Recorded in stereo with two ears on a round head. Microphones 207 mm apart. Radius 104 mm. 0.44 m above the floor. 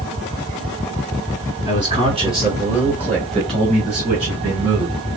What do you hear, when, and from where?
1.7 s a man speaking: 20° right (ahead or behind), 1.2 m; by 5.0 s 30° right (ahead or behind), 3 m